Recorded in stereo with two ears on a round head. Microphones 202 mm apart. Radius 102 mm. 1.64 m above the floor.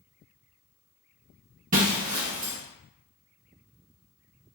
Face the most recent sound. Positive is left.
turn(degrees=-35)  # may be behind; listen again after turning